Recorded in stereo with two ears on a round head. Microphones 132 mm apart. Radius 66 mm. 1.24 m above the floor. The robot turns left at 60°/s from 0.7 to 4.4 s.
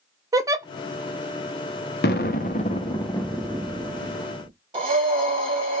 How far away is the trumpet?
No trumpet in this recording.